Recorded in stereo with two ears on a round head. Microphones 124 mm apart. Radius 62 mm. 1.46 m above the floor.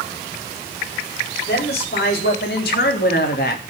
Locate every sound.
1.5 s a woman speaking: 85° left, 4.5 m; by 3.6 s 75° left (ahead or behind), 2.5 m